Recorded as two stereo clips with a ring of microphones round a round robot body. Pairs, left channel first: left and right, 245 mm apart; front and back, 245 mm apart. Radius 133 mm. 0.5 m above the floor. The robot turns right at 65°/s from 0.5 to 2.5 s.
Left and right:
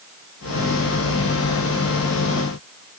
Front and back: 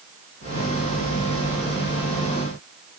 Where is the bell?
No bell in this recording.